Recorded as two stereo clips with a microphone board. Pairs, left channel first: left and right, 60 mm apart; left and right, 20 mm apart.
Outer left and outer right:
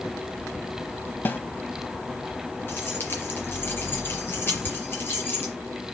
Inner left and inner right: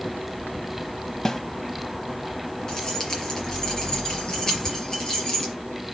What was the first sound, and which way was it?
A snare drum, 35° left (ahead or behind).